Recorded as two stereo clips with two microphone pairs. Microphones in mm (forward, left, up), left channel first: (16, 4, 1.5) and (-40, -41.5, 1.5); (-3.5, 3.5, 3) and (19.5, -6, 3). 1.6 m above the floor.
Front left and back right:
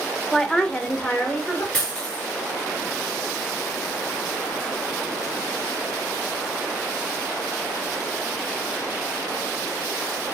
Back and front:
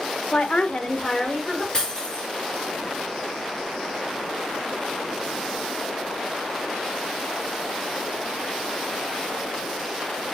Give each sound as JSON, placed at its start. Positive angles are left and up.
{"t": 0.3, "sound": "a woman speaking", "azimuth_deg": 125, "distance_m": 0.6}
{"t": 1.7, "sound": "breaking glass", "azimuth_deg": 105, "distance_m": 4.0}